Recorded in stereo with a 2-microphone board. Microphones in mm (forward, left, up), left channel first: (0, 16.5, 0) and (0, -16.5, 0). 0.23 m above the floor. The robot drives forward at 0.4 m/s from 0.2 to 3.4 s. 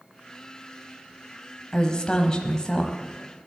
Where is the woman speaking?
25° left (ahead or behind), 1.0 m.